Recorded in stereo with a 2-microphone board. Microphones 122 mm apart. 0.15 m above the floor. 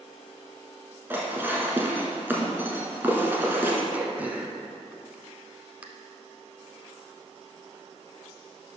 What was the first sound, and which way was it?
Dishes clattering, 20° right (ahead or behind).